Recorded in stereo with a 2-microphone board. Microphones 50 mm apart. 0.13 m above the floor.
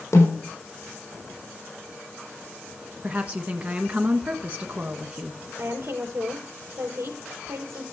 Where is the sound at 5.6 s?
60° right (ahead or behind), 3.5 m.